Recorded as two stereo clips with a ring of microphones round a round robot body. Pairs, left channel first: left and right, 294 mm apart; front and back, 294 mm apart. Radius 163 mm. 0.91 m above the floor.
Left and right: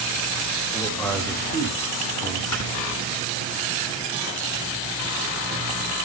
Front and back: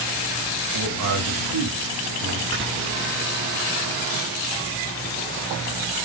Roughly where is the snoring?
Behind left.